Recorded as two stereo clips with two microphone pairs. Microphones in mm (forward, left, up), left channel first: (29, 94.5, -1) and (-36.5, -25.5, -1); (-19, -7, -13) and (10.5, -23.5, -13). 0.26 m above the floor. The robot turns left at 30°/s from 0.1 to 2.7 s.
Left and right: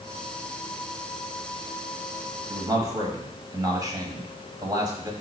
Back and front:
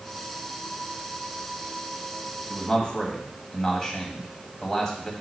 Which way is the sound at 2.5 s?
150° right.